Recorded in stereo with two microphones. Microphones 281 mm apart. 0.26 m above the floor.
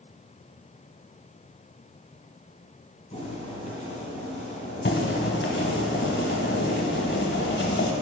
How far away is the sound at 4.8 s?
About 0.9 m.